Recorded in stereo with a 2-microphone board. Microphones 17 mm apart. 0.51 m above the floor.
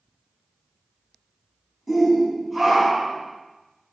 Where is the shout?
5° right (ahead or behind), 4 m; by 3.2 s 15° right (ahead or behind), 4.5 m.